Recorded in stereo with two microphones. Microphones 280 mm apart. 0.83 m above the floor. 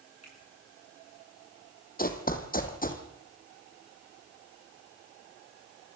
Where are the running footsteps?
30° left (ahead or behind), 2 m.